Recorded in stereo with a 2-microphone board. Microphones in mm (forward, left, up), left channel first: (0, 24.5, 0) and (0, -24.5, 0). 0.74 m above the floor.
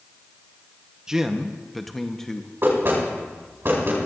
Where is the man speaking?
15° right (ahead or behind), 0.8 m; by 2.5 s 10° left (ahead or behind), 0.9 m.